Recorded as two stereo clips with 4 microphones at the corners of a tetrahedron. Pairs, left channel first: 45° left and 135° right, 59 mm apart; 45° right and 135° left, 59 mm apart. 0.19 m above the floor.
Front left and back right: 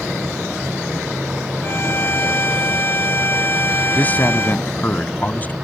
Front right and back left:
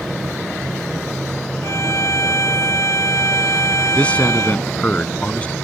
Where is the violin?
10° right.